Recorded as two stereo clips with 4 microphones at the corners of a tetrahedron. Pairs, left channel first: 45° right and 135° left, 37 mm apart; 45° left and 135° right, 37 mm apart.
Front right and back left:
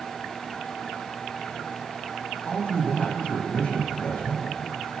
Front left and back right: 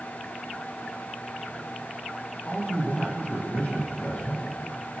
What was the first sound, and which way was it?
A man speaking, 5° left.